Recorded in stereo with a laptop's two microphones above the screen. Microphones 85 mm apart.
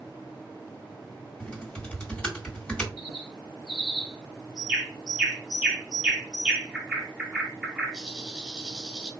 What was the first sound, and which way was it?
Typing on a keyboard, 10° left (ahead or behind).